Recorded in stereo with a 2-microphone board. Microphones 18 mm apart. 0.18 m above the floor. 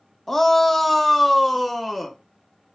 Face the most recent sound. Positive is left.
turn(degrees=-5)  # may be behind; listen again after turning